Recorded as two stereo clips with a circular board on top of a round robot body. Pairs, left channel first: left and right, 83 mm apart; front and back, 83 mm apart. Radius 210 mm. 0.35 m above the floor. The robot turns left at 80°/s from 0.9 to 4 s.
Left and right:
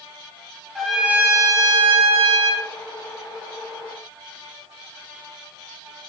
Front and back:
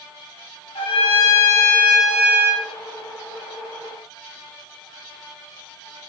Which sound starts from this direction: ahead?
A trumpet, at 0.8 s.